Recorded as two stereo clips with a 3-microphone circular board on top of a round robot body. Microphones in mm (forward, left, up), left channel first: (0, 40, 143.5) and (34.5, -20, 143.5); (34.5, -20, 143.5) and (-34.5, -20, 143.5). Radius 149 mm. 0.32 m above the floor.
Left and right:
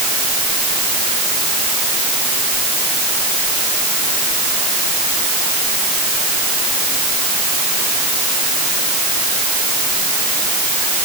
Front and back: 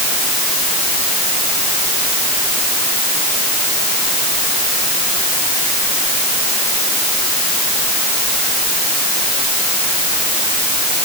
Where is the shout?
I don't hear a shout.